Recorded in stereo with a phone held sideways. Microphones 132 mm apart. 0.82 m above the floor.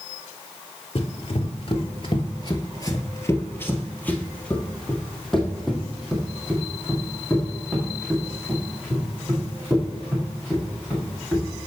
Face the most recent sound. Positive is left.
turn(degrees=-15)  # may be behind; listen again after turning